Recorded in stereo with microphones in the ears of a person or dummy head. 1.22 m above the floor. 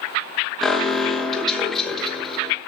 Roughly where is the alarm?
Centre.